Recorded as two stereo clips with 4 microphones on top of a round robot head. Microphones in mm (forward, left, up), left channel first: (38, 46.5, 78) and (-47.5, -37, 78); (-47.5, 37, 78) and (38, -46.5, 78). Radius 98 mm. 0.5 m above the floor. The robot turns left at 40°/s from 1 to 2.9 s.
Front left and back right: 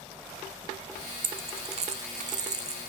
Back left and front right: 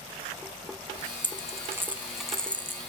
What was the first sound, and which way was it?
A dropped coin, 95° right.